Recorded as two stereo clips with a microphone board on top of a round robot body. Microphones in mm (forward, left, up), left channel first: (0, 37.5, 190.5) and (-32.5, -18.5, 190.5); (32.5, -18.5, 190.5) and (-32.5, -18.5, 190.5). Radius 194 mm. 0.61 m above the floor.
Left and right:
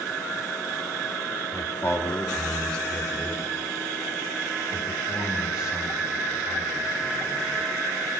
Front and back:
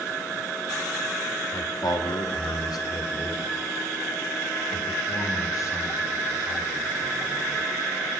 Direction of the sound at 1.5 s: 10° left.